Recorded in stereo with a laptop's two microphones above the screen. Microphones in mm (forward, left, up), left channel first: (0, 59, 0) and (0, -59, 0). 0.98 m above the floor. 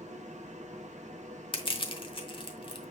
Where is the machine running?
80° right, 0.8 m.